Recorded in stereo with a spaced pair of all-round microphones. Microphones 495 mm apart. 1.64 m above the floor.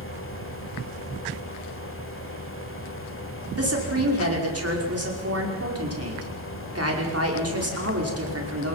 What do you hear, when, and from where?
0.0 s a fan: 25° left (ahead or behind), 1.8 m
3.6 s a woman speaking: 30° right (ahead or behind), 5 m